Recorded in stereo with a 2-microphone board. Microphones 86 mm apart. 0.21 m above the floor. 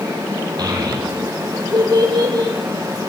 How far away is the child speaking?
About 7 m.